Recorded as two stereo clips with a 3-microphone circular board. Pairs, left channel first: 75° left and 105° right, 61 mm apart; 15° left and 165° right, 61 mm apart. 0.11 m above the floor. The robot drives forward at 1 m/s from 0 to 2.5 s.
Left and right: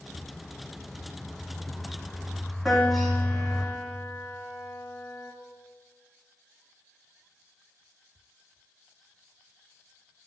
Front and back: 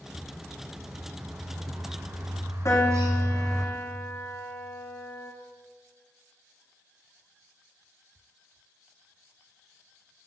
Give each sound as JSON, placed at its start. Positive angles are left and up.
{"t": 0.1, "sound": "a bird", "azimuth_deg": 145, "distance_m": 1.8}
{"t": 2.6, "sound": "a piano", "azimuth_deg": -20, "distance_m": 5.5}